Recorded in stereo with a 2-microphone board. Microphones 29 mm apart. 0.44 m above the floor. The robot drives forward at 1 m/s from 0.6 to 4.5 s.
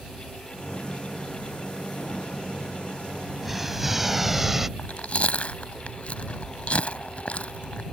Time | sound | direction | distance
3.4 | an explosion | 5° right (ahead or behind) | ?
4.8 | chewing | 55° left (ahead or behind) | ?